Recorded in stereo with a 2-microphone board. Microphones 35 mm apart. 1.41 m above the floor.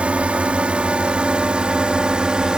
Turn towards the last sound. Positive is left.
turn(degrees=-25)  # may be behind; listen again after turning